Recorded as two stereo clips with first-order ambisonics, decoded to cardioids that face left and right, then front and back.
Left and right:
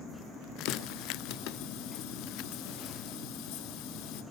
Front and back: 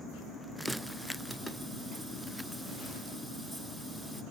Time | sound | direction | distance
0.7 | a running tap | 90° left | 0.9 m